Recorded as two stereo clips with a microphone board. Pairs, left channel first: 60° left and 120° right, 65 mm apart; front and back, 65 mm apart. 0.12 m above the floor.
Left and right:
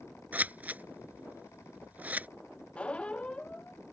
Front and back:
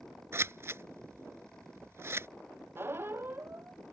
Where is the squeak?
130° left.